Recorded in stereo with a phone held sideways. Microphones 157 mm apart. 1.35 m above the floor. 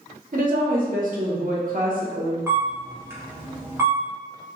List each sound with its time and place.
0.3 s a woman speaking: 60° right (ahead or behind), 0.7 m
2.5 s a camera shutter: 15° right (ahead or behind), 0.8 m